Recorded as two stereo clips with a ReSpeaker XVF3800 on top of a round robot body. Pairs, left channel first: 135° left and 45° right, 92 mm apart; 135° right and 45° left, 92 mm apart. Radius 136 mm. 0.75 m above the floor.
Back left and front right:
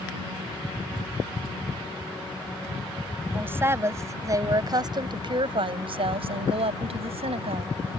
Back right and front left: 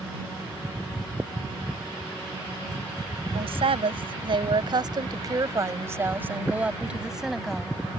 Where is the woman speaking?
25° left; by 7.7 s 45° right.